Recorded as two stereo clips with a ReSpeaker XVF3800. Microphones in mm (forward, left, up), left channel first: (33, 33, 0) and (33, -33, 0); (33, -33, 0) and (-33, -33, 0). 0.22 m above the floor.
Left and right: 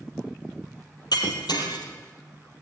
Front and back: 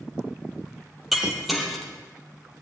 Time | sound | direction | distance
1.1 | breaking glass | 90° left | 4 m